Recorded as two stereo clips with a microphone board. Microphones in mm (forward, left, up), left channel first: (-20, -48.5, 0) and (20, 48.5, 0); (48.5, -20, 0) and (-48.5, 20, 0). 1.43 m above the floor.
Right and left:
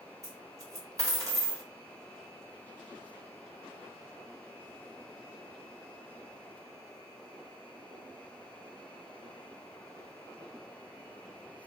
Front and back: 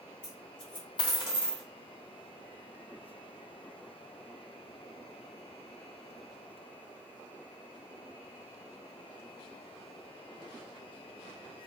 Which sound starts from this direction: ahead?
A dropped coin, at 0.2 s.